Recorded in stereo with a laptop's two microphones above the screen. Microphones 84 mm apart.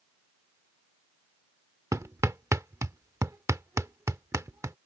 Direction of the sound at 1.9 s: 35° right (ahead or behind).